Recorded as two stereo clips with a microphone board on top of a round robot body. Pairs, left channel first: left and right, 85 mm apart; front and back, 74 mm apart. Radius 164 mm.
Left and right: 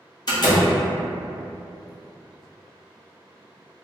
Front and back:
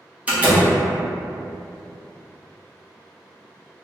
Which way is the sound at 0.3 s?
110° left.